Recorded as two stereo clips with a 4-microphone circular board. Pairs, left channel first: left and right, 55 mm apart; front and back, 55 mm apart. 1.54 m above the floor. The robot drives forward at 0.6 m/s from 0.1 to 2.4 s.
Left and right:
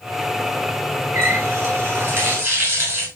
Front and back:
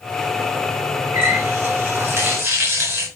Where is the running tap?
145° right, 6 m.